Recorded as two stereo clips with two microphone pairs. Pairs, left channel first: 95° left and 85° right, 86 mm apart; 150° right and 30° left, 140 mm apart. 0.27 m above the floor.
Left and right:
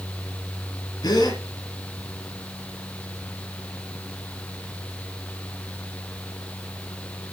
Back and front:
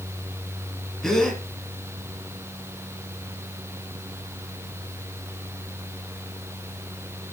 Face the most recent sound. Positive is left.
turn(degrees=125)